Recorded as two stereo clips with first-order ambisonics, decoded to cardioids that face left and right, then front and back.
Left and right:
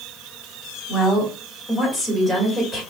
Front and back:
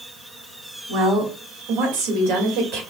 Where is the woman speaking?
155° left, 2 m; by 2.8 s 170° right, 1.8 m.